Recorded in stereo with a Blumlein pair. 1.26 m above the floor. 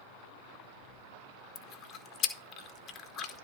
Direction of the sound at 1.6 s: 30° left.